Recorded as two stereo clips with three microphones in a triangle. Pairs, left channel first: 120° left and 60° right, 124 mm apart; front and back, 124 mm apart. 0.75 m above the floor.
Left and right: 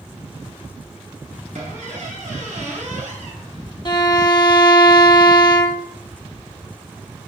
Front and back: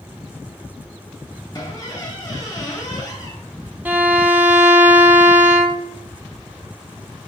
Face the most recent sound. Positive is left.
turn(degrees=115)